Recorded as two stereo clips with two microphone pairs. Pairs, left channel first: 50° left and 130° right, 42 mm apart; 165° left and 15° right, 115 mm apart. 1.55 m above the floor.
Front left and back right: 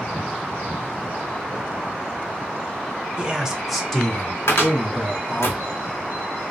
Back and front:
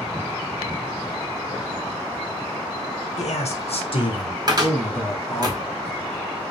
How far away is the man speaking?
About 0.7 m.